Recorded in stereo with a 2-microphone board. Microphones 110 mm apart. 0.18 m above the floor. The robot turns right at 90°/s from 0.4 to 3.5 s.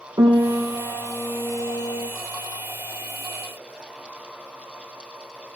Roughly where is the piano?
Ahead right.